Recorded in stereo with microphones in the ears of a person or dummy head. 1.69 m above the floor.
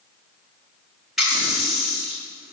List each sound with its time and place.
1.2 s a running tap: centre (ahead or behind), 2 m